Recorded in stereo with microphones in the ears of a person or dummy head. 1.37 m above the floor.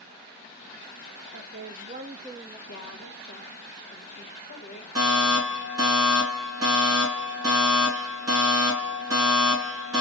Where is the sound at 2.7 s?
65° left (ahead or behind), 1.2 m.